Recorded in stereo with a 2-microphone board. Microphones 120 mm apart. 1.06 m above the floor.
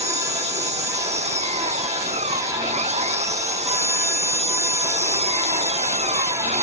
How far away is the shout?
No shout in this recording.